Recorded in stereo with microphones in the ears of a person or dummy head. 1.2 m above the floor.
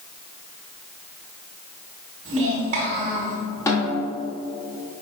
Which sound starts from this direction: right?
A child speaking, at 2.2 s.